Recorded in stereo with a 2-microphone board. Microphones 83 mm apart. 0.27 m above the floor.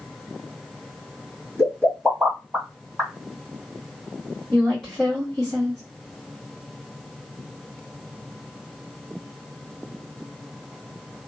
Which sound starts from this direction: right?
A pop, at 1.6 s.